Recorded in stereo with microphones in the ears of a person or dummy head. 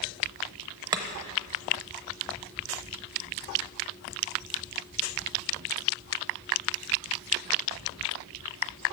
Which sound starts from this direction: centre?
Chopping, at 0.9 s.